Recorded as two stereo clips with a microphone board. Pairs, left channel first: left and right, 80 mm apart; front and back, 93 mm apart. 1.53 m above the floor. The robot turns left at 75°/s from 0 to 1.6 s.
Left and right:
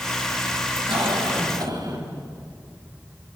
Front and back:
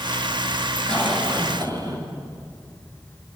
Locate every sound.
0.9 s a cough: 80° right, 8 m; by 2.0 s 130° right, 8 m